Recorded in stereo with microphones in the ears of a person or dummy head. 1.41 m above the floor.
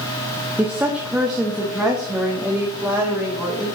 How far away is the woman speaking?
About 0.6 m.